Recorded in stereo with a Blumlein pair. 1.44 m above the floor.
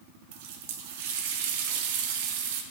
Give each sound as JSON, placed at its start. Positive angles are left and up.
{"t": 0.3, "sound": "a running tap", "azimuth_deg": -50, "distance_m": 1.2}